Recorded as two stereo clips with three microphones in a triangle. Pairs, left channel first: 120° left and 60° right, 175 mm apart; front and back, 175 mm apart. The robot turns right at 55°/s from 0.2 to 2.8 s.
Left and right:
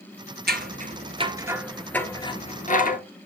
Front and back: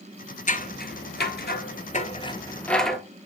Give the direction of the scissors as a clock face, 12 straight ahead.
1 o'clock.